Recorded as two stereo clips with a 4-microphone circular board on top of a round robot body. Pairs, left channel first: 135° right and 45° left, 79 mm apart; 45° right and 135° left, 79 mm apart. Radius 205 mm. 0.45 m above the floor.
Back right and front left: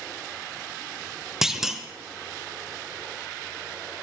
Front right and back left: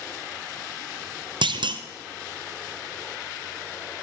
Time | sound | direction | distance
1.4 | a clunk | 130° left | 0.9 m